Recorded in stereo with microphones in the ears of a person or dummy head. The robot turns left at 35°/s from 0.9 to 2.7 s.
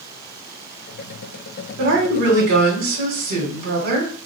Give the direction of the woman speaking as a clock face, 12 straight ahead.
3 o'clock.